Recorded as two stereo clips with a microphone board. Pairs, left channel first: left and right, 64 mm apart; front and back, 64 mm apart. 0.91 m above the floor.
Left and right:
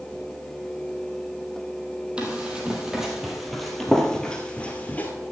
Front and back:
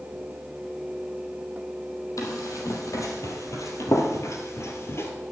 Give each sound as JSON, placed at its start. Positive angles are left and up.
{"t": 2.2, "sound": "running footsteps", "azimuth_deg": -20, "distance_m": 2.0}